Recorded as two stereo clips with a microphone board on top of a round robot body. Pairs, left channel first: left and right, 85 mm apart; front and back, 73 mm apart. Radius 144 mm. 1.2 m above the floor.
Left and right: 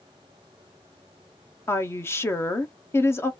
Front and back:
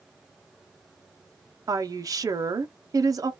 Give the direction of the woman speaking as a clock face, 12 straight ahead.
7 o'clock.